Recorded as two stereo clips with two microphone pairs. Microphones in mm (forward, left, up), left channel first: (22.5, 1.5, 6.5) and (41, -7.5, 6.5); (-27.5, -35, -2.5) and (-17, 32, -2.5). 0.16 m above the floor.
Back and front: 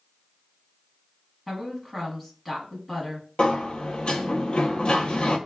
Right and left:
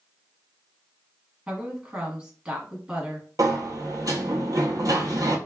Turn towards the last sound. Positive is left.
turn(degrees=110)